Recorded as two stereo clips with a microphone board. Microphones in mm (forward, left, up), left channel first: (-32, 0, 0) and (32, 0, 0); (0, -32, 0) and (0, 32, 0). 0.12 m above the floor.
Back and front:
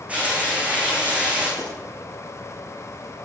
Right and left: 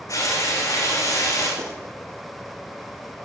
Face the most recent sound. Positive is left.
turn(degrees=75)